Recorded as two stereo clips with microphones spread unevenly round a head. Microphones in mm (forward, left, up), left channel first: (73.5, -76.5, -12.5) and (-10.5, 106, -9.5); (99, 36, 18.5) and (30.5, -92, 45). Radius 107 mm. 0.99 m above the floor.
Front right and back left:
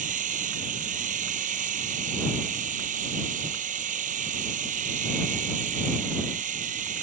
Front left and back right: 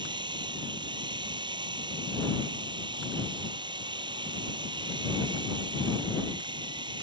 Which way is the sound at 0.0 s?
170° left.